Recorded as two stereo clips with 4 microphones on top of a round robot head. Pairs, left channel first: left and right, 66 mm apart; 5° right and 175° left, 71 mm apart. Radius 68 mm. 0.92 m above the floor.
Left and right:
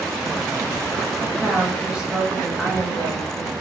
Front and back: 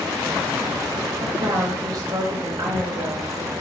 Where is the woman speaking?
160° right, 1.1 m.